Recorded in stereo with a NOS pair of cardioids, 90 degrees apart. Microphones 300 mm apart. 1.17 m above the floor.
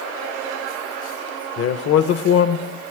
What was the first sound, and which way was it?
A man speaking, 55° left.